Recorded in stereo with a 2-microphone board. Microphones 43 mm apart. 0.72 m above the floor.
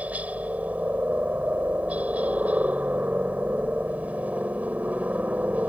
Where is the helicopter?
35° right (ahead or behind).